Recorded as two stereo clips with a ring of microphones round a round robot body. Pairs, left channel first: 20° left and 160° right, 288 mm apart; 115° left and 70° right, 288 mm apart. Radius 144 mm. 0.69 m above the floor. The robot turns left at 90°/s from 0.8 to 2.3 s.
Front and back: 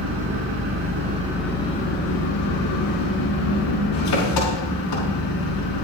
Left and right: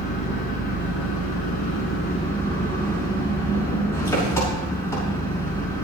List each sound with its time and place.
0.0 s an engine running: 165° left, 6 m; by 5.8 s 30° left, 6 m